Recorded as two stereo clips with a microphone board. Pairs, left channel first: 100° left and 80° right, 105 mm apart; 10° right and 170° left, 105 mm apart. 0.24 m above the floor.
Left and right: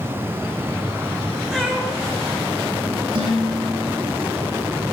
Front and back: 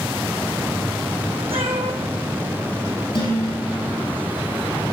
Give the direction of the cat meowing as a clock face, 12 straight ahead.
5 o'clock.